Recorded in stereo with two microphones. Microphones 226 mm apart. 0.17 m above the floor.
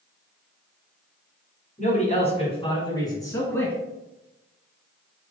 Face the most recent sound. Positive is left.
turn(degrees=5)  # may be behind; listen again after turning